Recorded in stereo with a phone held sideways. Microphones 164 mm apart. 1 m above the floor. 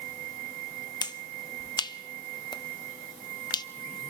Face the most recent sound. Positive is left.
turn(degrees=25)  # may be behind; listen again after turning